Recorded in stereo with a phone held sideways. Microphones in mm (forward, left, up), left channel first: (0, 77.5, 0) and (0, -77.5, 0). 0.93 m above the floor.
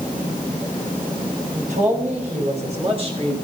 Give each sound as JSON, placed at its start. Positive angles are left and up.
{"t": 1.6, "sound": "a man speaking", "side_deg": -60, "distance_m": 4.5}